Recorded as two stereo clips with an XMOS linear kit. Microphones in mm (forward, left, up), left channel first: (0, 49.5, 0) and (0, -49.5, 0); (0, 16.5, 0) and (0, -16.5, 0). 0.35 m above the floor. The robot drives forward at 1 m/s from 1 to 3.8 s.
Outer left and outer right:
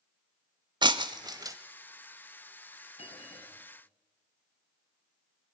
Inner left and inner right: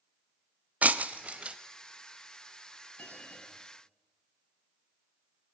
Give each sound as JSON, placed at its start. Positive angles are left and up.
{"t": 0.8, "sound": "breaking glass", "side_deg": -50, "distance_m": 0.8}
{"t": 3.0, "sound": "a bell", "side_deg": 80, "distance_m": 4.5}